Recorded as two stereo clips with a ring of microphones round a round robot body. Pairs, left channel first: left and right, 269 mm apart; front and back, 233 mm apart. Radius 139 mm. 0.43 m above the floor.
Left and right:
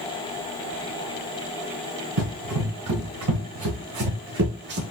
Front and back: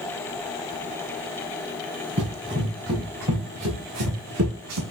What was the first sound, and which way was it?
Running footsteps, 125° right.